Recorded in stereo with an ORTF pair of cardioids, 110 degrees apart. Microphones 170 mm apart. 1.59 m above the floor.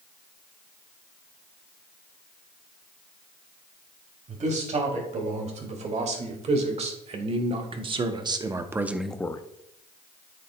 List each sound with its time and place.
4.3 s a man speaking: 45° right, 3.5 m; by 9.4 s 30° left, 0.5 m